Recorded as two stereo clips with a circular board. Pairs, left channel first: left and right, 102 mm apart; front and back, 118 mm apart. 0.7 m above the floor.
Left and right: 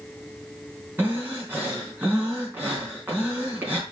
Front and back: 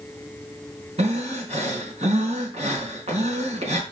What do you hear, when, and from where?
1.0 s breathing: 160° right, 4 m